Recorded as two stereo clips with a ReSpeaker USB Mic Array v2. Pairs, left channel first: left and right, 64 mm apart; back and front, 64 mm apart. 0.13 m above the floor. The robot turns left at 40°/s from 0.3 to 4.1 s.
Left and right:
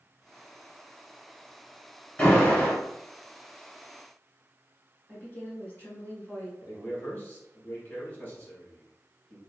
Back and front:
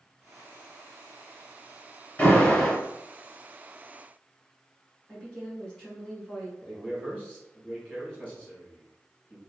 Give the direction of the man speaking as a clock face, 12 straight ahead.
8 o'clock.